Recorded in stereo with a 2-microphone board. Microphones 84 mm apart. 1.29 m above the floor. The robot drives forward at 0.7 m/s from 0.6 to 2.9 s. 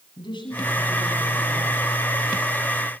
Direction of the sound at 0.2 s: 70° left (ahead or behind).